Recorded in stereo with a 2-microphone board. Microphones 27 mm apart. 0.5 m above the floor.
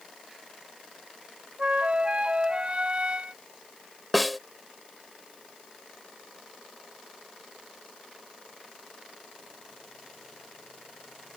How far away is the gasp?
No gasp in this recording.